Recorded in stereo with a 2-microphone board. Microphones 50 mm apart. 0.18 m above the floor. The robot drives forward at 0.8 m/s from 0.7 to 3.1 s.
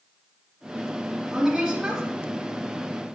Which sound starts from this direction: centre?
A woman speaking, at 1.3 s.